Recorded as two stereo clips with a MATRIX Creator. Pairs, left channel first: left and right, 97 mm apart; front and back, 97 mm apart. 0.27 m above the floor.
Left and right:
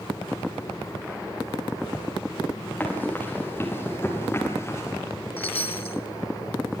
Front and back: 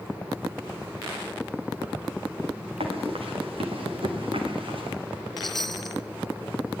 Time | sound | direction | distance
2.8 | running footsteps | 165° left | 6 m
5.4 | a chime | 90° left | 0.9 m